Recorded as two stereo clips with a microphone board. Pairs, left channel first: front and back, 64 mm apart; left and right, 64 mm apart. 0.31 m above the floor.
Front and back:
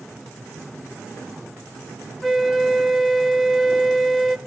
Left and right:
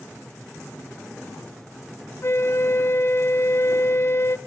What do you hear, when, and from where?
2.2 s a flute: 90° left, 0.7 m